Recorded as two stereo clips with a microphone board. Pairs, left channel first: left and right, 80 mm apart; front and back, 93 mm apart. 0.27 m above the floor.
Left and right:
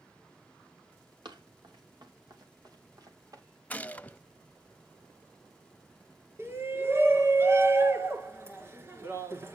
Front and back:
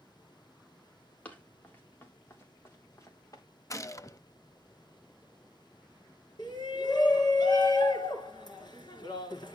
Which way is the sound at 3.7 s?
30° left.